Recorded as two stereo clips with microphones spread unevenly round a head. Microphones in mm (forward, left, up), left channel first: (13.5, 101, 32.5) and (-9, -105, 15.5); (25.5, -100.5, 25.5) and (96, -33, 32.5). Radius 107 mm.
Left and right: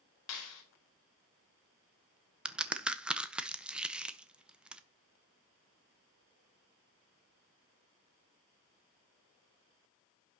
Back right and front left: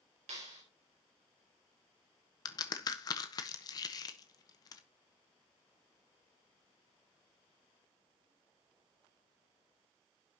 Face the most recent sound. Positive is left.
turn(degrees=180)